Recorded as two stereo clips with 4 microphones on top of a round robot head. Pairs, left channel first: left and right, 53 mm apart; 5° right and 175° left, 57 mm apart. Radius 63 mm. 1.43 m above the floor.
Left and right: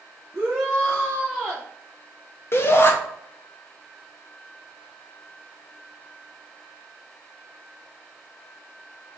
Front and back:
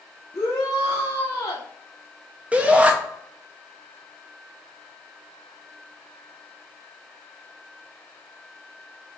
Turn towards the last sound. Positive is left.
turn(degrees=110)